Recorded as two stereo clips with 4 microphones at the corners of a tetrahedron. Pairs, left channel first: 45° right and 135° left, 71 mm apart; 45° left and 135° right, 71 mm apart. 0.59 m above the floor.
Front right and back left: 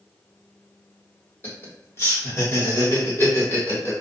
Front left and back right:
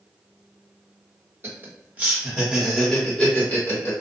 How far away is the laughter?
About 1.5 m.